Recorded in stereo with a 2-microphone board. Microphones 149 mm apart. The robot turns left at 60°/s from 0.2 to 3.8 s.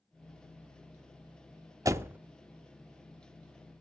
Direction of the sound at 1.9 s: 20° right (ahead or behind).